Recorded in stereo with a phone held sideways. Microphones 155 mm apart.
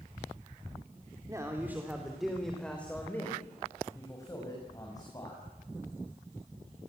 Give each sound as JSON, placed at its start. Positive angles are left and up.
{"t": 1.3, "sound": "a man speaking", "side_deg": -20, "distance_m": 3.0}